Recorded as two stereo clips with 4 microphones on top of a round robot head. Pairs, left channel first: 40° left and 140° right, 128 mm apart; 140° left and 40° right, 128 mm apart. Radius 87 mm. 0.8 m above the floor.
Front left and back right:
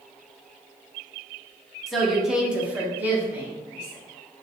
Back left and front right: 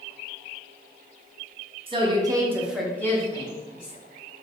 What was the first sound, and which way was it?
A woman speaking, 50° right.